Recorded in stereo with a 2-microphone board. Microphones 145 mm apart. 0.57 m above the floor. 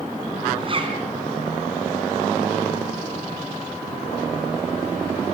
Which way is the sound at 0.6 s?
40° right (ahead or behind).